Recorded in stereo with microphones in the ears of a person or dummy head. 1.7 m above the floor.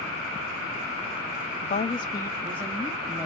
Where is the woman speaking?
35° left (ahead or behind), 0.6 m; by 3.2 s 5° right (ahead or behind), 1.2 m.